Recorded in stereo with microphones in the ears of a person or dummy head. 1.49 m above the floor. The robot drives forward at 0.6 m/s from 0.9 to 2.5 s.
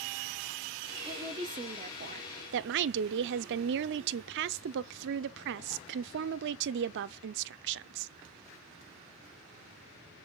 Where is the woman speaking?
20° right (ahead or behind), 1.1 m; by 8.1 s 65° right (ahead or behind), 0.5 m.